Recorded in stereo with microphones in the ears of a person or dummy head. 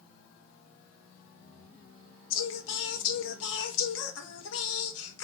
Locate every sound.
2.3 s singing: 70° left (ahead or behind), 0.9 m